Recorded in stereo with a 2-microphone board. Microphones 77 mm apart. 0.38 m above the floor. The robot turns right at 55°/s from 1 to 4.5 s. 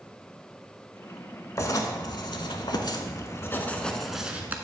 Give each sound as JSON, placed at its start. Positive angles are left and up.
{"t": 1.6, "sound": "writing", "azimuth_deg": 45, "distance_m": 0.7}